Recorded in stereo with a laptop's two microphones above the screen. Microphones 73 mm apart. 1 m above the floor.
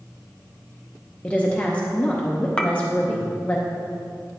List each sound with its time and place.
1.2 s a woman speaking: 20° left (ahead or behind), 0.6 m
2.6 s a clink: 15° left (ahead or behind), 0.7 m